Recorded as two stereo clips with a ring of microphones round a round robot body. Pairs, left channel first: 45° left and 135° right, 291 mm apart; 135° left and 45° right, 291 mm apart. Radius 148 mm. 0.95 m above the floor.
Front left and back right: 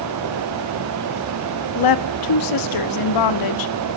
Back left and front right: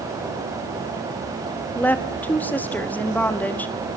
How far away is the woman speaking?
About 1.5 m.